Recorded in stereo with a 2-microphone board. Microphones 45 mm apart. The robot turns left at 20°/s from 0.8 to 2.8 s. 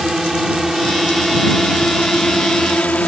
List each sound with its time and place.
0.0 s a drone: 10° right (ahead or behind); by 3.1 s 25° left (ahead or behind)